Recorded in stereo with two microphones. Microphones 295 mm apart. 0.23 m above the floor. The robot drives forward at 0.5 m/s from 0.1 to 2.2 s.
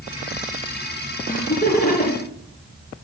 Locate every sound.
1.3 s laughter: 30° left (ahead or behind), 3.5 m